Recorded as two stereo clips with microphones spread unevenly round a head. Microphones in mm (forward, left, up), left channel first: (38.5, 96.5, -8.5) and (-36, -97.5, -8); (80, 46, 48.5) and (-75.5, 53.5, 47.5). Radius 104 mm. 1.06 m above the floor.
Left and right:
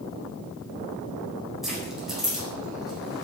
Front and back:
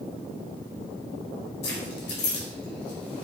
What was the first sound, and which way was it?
Keys jangling, 25° right.